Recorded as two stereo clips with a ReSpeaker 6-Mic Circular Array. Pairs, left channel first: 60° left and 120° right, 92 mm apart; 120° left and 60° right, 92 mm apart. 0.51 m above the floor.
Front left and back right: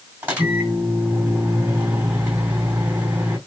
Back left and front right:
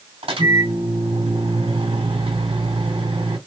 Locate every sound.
0.2 s a microwave: 50° right, 2 m